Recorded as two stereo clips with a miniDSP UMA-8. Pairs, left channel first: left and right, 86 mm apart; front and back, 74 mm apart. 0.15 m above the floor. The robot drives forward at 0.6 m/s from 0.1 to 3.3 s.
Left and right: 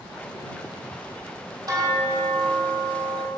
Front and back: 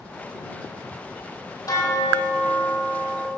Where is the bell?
45° right, 1.6 m; by 3.3 s 80° right, 1.1 m.